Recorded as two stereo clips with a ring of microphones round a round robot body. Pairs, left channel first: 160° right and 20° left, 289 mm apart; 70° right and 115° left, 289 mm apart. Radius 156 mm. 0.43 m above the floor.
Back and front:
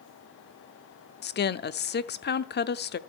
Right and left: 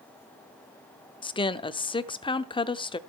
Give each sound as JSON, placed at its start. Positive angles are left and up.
{"t": 1.2, "sound": "a woman speaking", "azimuth_deg": -130, "distance_m": 0.9}